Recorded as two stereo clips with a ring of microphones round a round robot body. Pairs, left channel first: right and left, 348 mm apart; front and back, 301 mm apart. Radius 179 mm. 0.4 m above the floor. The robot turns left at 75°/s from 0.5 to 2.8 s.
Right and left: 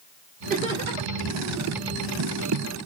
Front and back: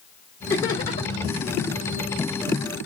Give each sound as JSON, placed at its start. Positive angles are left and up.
{"t": 0.5, "sound": "laughter", "azimuth_deg": 75, "distance_m": 1.4}